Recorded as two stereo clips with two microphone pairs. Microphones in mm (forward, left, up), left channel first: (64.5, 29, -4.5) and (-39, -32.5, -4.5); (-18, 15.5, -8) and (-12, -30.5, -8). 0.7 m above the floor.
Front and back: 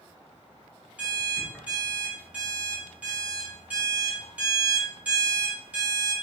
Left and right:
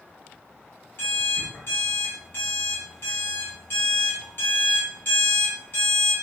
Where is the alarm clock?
135° left, 1.7 m.